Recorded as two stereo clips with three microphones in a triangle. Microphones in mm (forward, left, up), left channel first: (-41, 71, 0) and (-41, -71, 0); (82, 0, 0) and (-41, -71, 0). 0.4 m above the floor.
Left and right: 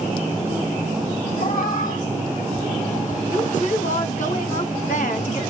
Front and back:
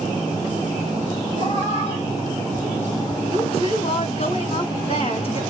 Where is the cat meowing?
75° left, 4 m; by 3.2 s 90° left, 5 m.